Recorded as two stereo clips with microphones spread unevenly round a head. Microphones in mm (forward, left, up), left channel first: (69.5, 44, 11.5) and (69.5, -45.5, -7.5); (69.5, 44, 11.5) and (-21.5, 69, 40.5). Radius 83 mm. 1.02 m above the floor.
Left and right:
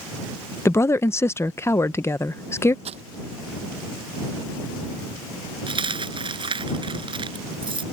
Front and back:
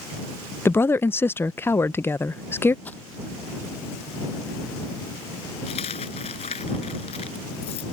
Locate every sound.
0.7 s a woman speaking: 25° left
2.9 s crumpling: 100° right
5.7 s a dropped coin: 60° right